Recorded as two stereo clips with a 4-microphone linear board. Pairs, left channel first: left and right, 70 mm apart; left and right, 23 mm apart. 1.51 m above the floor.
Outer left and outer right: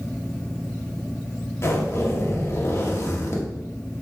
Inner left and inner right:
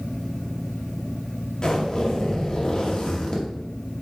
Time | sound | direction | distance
1.6 | a zipper | 40° left (ahead or behind) | 1.9 m